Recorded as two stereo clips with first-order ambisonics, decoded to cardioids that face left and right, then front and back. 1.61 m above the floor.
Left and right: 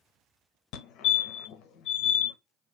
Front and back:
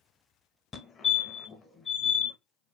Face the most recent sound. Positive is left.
turn(degrees=70)